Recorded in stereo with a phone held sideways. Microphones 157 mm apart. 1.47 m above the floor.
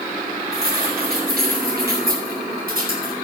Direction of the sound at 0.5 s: 75° right (ahead or behind).